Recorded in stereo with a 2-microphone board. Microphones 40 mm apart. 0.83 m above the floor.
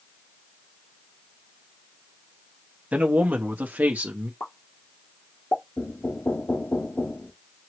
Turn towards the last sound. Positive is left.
turn(degrees=70)  # may be behind; listen again after turning